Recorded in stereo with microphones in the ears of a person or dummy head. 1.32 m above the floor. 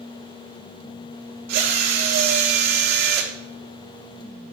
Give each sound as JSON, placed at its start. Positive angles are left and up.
{"t": 1.5, "sound": "a drill", "side_deg": -55, "distance_m": 1.1}